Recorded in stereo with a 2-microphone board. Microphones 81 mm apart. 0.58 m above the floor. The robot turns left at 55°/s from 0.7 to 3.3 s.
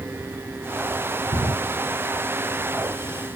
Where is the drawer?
85° right, 1.2 m; by 1.5 s 80° right, 1.2 m.